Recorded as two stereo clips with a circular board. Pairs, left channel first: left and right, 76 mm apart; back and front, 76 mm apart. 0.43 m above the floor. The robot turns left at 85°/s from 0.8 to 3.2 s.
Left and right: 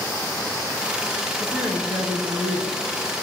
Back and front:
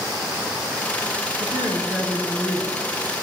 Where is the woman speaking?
20° right, 5.5 m; by 2.8 s 135° right, 5.5 m.